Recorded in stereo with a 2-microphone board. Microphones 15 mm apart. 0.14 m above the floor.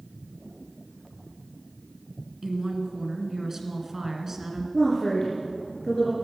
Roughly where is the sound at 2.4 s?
Right.